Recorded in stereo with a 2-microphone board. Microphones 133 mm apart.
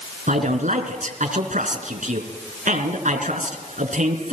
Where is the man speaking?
70° right (ahead or behind), 3.5 m.